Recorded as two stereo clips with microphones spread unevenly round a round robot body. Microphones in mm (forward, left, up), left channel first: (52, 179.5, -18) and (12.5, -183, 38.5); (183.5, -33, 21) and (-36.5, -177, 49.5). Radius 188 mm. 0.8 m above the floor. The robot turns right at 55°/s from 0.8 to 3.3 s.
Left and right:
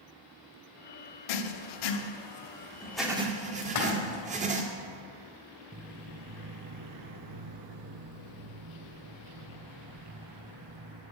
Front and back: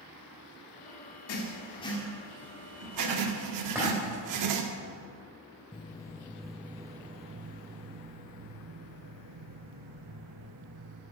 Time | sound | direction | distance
1.3 | writing | 80° left | 1.1 m
3.6 | a splash | 130° left | 2.5 m
5.7 | footsteps | 40° right | 1.4 m